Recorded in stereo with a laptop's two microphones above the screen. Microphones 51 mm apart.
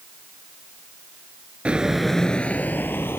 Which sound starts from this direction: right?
Footsteps, at 1.6 s.